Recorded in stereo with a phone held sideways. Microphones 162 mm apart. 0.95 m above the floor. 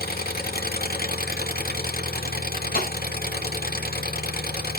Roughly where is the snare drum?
Left.